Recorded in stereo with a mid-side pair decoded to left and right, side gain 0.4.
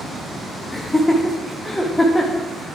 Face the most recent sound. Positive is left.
turn(degrees=15)